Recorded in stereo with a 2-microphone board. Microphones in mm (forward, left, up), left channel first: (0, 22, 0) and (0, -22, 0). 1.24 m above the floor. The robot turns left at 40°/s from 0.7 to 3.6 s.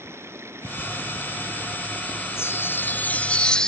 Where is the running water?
100° right; by 3.7 s 145° left.